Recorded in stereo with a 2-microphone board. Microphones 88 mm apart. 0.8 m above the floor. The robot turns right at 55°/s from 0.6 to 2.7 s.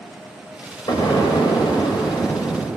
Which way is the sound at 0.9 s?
55° left.